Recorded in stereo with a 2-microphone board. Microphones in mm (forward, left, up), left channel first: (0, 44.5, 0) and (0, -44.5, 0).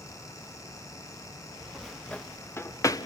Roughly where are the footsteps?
Centre.